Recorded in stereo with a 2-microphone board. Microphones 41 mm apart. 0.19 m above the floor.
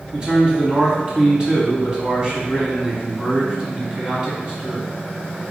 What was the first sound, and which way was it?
A man speaking, 20° right (ahead or behind).